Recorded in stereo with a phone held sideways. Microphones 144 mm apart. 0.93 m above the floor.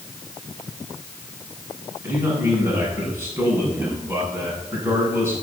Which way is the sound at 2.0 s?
15° right (ahead or behind).